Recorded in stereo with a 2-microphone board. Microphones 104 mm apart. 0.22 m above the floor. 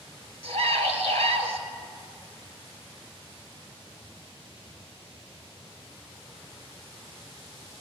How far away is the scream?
About 3.5 m.